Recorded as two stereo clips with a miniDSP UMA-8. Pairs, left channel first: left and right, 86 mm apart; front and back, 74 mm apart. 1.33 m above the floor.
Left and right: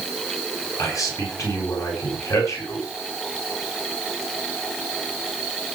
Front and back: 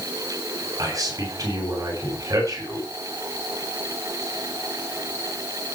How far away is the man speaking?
About 8 m.